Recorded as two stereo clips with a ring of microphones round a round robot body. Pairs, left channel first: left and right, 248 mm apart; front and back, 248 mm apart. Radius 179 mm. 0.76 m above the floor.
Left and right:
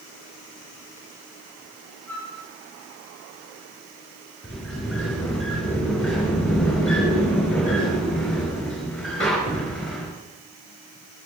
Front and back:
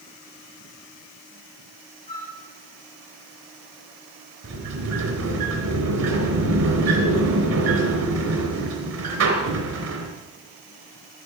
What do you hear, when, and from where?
2.1 s a flute: 65° right, 5.5 m
4.4 s a sliding door: straight behind, 3.5 m